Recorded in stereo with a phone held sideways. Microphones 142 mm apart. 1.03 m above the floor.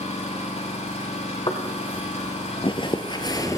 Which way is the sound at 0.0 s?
50° left (ahead or behind).